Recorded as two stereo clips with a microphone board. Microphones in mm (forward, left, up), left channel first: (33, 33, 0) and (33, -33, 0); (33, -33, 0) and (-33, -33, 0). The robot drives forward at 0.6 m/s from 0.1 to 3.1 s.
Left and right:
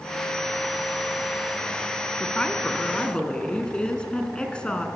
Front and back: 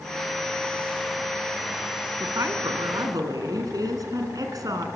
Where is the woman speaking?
160° left, 3 m; by 4.9 s 165° left, 3.5 m.